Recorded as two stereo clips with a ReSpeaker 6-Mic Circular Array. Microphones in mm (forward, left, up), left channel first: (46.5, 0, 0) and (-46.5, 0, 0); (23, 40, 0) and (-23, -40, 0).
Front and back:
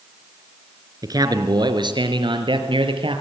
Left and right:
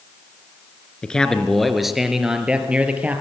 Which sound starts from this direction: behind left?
A man speaking, at 1.0 s.